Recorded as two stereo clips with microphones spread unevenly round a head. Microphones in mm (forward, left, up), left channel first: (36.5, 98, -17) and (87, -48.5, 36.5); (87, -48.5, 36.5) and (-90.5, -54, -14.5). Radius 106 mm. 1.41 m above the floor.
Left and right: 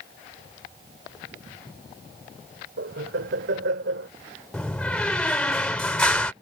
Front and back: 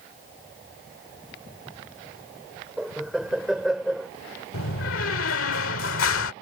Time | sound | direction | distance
2.8 | laughter | 90° right | ?
4.5 | a door slam | 25° left | ?